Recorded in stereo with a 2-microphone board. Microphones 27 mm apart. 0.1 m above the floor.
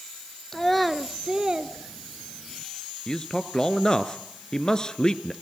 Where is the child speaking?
20° left (ahead or behind), 1.0 m; by 2.6 s 55° right (ahead or behind), 1.4 m.